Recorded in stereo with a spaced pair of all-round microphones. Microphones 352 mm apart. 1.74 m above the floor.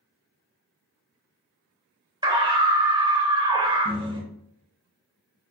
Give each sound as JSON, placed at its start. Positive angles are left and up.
{"t": 2.2, "sound": "a scream", "side_deg": -15, "distance_m": 2.0}